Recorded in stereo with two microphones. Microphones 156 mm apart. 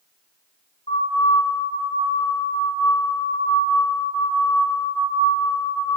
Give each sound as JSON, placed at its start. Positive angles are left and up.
{"t": 0.9, "sound": "a siren", "side_deg": 40, "distance_m": 5.0}